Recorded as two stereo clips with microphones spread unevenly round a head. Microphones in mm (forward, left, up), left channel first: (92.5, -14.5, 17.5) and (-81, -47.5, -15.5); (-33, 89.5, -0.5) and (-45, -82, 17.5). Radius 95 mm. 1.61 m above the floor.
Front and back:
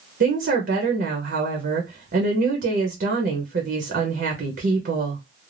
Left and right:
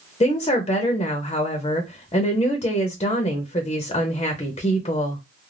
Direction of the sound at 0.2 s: 145° left.